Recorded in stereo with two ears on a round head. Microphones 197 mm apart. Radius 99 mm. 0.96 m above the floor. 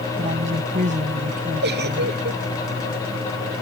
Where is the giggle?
50° right (ahead or behind).